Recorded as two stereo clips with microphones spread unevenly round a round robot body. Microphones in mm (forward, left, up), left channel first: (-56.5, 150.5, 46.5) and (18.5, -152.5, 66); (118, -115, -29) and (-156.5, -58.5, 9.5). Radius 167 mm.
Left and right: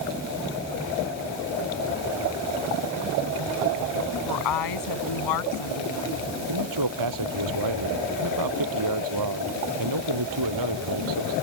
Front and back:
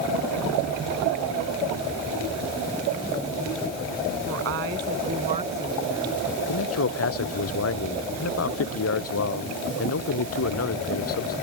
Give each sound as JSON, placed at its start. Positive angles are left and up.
{"t": 4.3, "sound": "a woman speaking", "azimuth_deg": 115}
{"t": 6.5, "sound": "a man speaking", "azimuth_deg": -50}